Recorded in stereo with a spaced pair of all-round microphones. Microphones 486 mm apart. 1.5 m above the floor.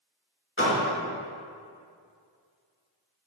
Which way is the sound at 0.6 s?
25° left (ahead or behind).